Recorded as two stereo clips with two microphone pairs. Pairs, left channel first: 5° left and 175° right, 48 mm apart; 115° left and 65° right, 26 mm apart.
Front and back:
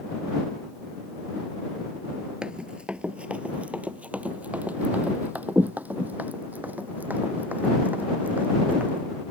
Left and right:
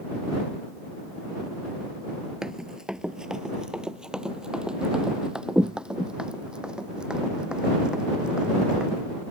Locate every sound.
2.4 s running footsteps: 115° right; by 9.0 s 125° right